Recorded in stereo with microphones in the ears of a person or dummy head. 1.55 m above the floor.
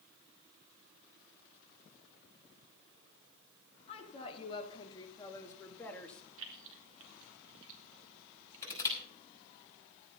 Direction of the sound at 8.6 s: 20° left (ahead or behind).